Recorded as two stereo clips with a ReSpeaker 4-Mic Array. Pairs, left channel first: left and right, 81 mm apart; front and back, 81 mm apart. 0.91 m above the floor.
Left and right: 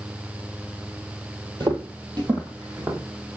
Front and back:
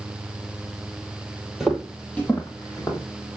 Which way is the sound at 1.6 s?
95° right.